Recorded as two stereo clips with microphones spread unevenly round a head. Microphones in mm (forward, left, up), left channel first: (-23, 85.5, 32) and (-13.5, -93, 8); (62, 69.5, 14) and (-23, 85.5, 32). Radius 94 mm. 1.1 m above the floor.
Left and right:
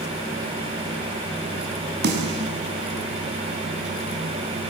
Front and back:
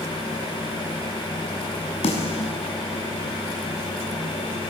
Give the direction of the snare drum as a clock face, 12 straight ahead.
2 o'clock.